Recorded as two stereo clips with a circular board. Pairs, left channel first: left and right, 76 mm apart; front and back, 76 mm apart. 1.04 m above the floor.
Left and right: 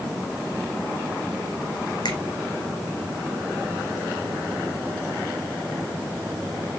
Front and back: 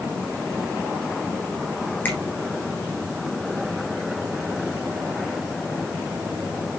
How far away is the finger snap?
About 2.5 m.